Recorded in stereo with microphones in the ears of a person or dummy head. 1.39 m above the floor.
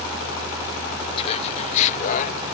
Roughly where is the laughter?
Left.